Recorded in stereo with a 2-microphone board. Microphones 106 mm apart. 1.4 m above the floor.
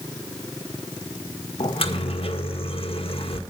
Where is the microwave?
65° left (ahead or behind), 1.6 m.